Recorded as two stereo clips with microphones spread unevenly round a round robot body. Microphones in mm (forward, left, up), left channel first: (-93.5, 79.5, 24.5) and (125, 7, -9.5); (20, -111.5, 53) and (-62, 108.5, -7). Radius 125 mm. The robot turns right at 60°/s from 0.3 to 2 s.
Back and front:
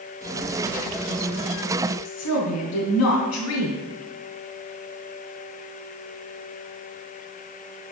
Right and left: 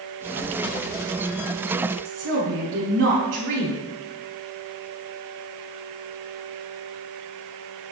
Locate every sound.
2.0 s a woman speaking: 145° left, 4.5 m